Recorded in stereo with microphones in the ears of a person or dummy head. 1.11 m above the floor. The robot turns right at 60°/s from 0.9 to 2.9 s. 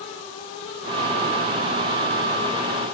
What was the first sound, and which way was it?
Only background noise.